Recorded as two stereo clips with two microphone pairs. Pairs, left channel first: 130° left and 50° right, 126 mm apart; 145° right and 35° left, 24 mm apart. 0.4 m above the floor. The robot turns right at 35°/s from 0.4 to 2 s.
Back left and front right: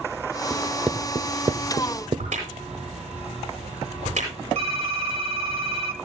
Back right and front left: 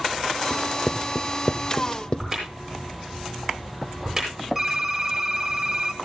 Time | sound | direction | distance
0.5 | writing | 145° right | 0.7 m
2.2 | a crack | 45° right | 9 m
4.5 | typing on a keyboard | 35° right | 2 m